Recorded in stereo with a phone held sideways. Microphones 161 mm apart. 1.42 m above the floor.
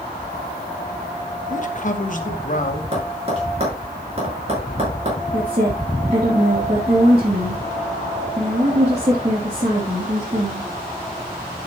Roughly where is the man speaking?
Left.